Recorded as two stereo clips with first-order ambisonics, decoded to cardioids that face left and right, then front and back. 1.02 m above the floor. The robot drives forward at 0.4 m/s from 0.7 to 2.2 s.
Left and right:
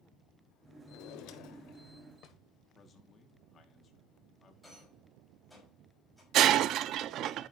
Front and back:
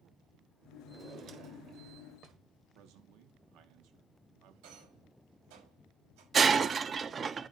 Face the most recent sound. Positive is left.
turn(degrees=-115)